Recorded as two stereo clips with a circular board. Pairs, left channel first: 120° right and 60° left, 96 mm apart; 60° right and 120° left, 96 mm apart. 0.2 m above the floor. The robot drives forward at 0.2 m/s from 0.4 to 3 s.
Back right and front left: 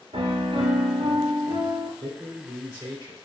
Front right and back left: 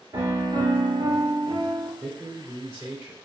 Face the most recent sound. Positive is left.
turn(degrees=-155)